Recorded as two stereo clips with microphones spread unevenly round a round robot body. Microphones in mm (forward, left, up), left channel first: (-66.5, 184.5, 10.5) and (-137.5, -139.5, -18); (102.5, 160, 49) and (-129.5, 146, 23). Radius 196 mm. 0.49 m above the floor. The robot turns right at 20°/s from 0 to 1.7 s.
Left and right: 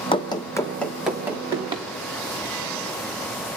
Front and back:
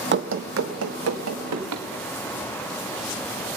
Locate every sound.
0.1 s running footsteps: 145° left, 0.8 m; by 1.9 s straight behind, 2.5 m